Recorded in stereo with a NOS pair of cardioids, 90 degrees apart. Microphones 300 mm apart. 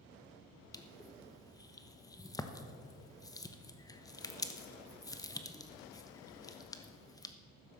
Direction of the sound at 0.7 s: 10° left.